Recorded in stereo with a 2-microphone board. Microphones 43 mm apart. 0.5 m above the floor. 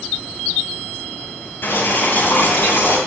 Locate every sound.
1.6 s boiling: 55° left (ahead or behind), 10 m